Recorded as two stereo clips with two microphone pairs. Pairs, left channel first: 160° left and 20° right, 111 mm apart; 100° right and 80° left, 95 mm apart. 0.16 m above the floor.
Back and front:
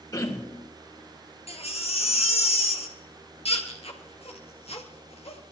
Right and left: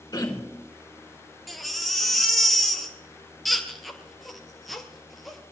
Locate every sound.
0.1 s throat clearing: 140° right, 3.5 m
1.5 s a baby crying: 170° left, 2 m